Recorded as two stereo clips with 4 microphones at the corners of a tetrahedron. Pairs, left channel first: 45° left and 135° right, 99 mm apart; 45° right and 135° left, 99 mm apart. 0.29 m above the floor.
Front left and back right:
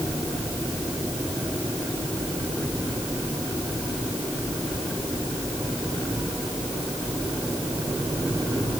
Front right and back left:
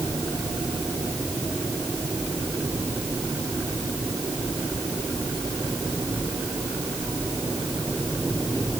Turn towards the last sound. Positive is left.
No sound to turn to.